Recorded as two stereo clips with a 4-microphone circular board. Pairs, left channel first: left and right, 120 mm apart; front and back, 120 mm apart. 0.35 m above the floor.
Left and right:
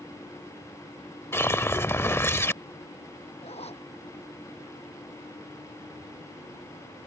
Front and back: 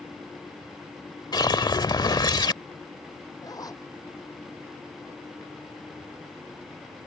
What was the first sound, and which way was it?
A whoosh, 30° left.